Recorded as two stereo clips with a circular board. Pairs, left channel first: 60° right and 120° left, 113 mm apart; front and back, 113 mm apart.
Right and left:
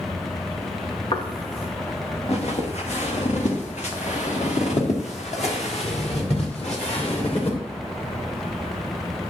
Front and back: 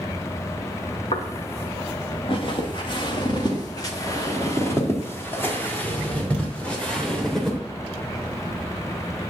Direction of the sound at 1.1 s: 25° right.